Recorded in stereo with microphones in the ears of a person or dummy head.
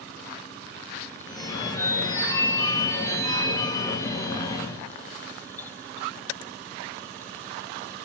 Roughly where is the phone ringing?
Left.